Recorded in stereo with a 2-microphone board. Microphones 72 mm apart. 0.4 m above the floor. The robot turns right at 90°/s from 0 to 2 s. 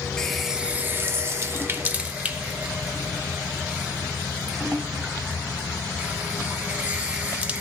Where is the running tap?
10° left (ahead or behind), 0.6 m; by 7.6 s 20° right (ahead or behind), 0.6 m.